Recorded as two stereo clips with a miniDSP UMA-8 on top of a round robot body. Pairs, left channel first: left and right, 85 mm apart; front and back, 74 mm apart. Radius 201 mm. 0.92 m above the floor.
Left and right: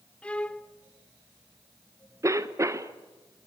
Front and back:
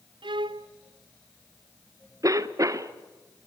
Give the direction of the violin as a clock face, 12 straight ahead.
6 o'clock.